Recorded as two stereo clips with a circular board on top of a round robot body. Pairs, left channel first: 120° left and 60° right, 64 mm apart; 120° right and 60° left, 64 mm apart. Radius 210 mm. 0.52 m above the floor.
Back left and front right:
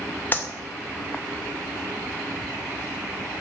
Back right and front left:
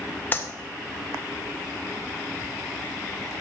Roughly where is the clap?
Behind.